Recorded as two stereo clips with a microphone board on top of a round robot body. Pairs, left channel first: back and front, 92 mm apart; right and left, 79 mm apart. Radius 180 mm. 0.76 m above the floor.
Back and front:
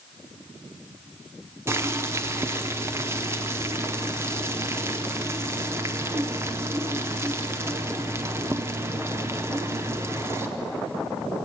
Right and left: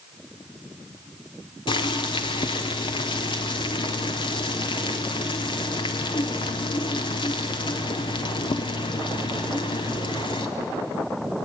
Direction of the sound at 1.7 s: 65° right.